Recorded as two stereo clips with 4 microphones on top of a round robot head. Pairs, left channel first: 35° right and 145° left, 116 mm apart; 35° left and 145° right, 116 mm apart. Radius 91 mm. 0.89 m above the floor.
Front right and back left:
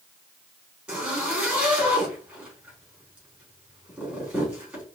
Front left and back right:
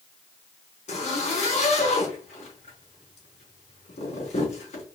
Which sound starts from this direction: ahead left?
A zipper, at 0.9 s.